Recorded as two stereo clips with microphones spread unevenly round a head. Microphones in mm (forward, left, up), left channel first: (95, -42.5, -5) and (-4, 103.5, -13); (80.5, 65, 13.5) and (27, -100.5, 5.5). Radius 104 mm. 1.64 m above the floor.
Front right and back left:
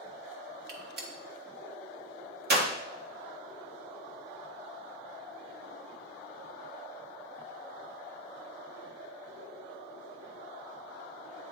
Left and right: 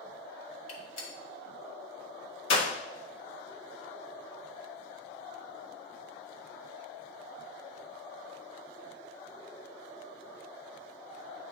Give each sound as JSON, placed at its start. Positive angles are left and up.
{"t": 0.7, "sound": "a gunshot", "azimuth_deg": 95, "distance_m": 1.9}